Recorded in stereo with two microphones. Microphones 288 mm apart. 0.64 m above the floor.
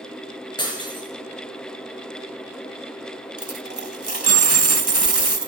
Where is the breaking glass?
15° left (ahead or behind), 4 m.